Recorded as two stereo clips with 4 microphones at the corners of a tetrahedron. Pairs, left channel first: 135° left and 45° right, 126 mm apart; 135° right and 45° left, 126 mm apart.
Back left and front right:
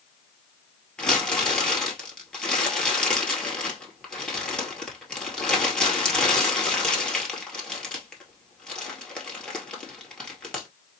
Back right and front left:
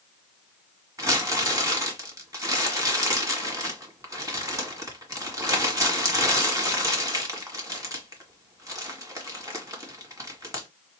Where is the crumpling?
60° left, 1.6 m.